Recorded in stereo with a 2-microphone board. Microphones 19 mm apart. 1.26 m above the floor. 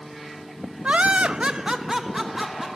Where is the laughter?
75° right (ahead or behind), 0.5 m; by 2.7 s 10° right (ahead or behind), 1.4 m.